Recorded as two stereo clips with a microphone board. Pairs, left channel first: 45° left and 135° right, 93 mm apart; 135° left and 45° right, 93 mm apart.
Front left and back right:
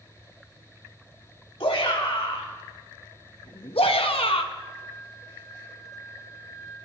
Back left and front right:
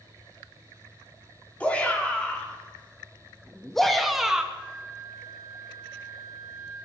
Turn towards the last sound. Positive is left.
turn(degrees=45)